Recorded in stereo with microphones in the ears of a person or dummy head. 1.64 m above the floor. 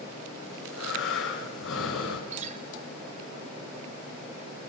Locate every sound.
0.5 s breathing: 80° left, 5 m
2.3 s a guitar: 45° right (ahead or behind), 2.5 m